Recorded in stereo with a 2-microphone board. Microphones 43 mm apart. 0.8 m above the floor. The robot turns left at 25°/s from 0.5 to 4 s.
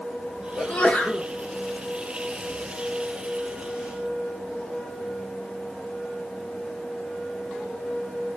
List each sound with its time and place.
0.6 s a sneeze: 30° left (ahead or behind), 1.1 m